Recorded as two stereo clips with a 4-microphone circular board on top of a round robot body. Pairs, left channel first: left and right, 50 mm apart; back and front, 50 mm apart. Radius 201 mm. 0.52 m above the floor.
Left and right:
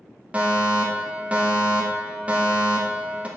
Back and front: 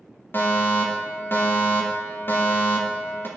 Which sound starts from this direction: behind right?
A fire alarm, at 0.3 s.